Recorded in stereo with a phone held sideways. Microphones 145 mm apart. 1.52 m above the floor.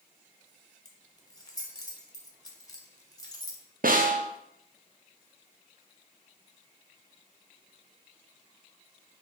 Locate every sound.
0.8 s keys jangling: 25° left (ahead or behind), 0.7 m
3.8 s a snare drum: 75° right (ahead or behind), 0.5 m